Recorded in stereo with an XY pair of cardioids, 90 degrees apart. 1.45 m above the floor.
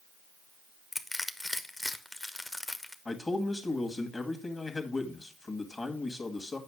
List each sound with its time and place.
0.9 s crushing: 20° left, 1.0 m
3.0 s a man speaking: 30° left, 2 m